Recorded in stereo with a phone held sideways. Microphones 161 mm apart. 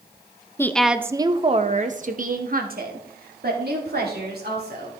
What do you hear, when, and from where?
0.6 s a woman speaking: 15° left (ahead or behind), 0.6 m; by 4.9 s 75° right (ahead or behind), 3 m